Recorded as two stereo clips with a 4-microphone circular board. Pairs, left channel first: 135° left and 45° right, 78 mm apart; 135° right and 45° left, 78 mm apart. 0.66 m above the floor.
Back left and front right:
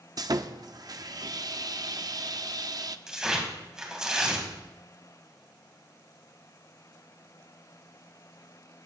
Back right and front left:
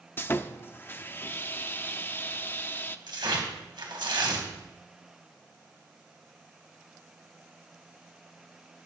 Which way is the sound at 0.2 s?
75° right.